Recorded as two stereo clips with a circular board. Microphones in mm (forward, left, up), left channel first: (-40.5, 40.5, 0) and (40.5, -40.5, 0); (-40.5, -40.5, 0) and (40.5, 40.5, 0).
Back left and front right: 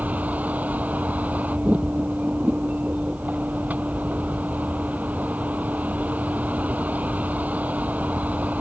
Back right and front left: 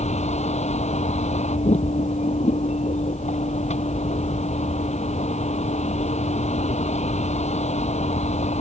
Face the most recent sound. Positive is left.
turn(degrees=-120)